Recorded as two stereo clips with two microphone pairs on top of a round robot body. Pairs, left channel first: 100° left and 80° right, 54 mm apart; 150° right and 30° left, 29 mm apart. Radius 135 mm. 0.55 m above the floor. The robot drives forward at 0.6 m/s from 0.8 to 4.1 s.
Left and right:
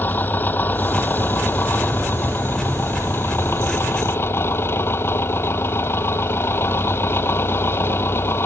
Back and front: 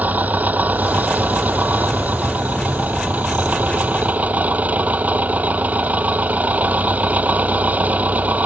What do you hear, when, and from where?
0.0 s an engine running: 45° left; by 8.5 s 50° left